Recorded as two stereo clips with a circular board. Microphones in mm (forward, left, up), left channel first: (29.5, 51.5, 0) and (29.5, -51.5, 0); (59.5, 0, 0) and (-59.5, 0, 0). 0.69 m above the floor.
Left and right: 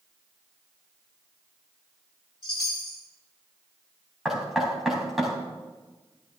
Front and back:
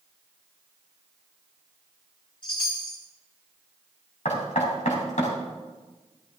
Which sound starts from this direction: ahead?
Knocking, at 4.2 s.